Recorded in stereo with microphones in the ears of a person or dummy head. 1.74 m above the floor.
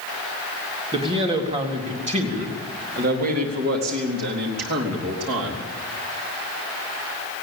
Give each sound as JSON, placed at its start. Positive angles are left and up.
{"t": 0.9, "sound": "a man speaking", "side_deg": -35, "distance_m": 4.0}